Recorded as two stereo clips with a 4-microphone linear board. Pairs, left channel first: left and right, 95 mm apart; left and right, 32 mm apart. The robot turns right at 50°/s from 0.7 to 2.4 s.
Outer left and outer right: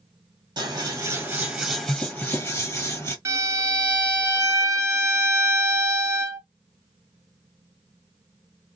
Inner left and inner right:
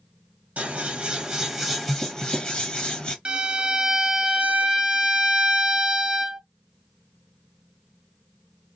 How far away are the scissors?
About 1.7 m.